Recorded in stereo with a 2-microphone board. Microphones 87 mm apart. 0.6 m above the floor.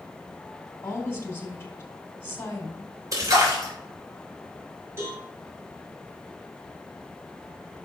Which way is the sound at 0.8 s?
30° left (ahead or behind).